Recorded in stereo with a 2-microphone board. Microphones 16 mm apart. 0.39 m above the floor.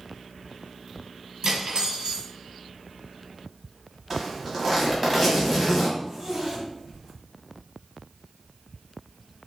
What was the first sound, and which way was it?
Cutlery clinking, 55° right (ahead or behind).